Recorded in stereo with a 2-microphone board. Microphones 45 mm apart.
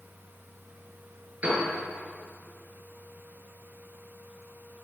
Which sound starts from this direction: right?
A piano, at 1.4 s.